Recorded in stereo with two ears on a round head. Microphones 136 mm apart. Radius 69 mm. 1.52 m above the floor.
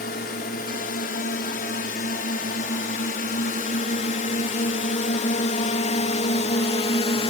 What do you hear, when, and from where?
0.0 s a drone: 70° left (ahead or behind); by 7.3 s 40° left (ahead or behind)